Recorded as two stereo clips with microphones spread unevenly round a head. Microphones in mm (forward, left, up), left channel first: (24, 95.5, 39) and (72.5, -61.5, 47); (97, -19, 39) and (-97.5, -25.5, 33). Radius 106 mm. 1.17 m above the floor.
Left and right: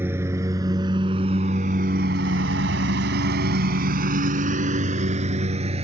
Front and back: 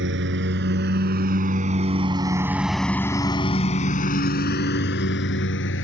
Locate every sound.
0.0 s a lawn mower: 150° right; by 5.8 s 20° right